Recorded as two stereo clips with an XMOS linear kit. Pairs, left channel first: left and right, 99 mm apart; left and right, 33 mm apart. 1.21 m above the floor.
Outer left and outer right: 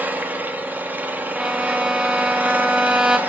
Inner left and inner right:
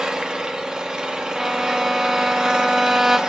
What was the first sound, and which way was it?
An engine running, 20° right (ahead or behind).